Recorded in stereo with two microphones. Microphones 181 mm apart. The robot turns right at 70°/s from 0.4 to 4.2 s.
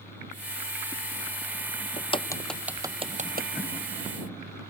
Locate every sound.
2.0 s a crack: 40° left (ahead or behind); by 3.5 s 60° right (ahead or behind)